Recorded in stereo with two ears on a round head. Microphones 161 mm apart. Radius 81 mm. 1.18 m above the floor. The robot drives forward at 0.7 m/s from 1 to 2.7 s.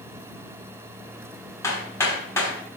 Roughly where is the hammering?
Centre.